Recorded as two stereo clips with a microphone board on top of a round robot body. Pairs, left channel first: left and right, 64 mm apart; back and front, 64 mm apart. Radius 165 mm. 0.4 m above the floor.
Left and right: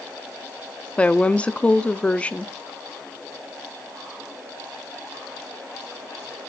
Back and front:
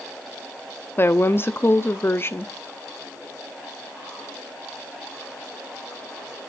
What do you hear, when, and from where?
1.0 s a woman speaking: 150° left, 0.9 m